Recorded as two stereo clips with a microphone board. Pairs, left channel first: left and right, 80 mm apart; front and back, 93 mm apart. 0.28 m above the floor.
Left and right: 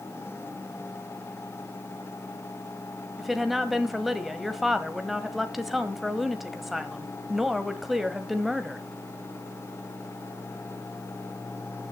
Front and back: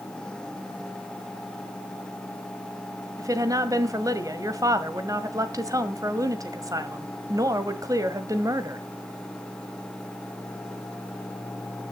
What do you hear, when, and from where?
3.2 s a woman speaking: 175° right, 1.5 m